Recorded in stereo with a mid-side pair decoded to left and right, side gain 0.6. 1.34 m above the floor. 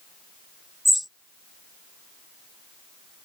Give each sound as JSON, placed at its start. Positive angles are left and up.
{"t": 0.8, "sound": "a bird", "azimuth_deg": 0}